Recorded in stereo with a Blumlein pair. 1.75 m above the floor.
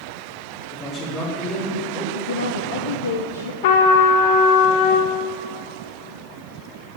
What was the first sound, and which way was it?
A man speaking, 30° left.